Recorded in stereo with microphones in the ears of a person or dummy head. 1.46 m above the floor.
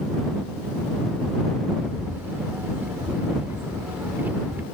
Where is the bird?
10° right (ahead or behind).